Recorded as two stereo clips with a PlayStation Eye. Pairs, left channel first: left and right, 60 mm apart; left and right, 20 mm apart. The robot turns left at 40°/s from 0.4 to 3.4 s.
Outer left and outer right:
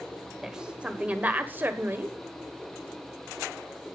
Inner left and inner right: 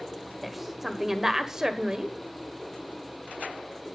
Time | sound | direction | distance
0.4 | a woman speaking | 15° right | 1.5 m